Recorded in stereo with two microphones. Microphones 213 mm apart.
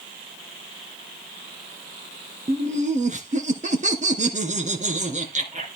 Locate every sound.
2.5 s laughter: 35° right (ahead or behind), 2.5 m